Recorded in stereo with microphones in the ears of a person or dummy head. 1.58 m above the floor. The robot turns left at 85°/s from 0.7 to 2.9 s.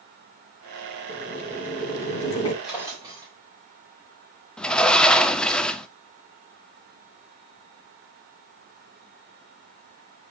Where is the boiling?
155° left, 2.0 m; by 2.5 s 35° left, 2.0 m.